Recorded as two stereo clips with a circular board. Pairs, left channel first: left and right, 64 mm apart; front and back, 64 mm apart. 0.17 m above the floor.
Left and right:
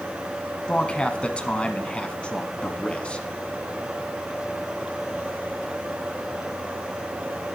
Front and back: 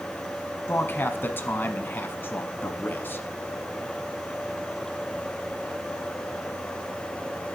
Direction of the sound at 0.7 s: 30° left.